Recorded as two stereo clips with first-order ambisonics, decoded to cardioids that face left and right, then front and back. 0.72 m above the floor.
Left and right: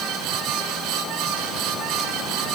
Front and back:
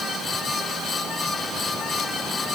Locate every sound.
Only background noise.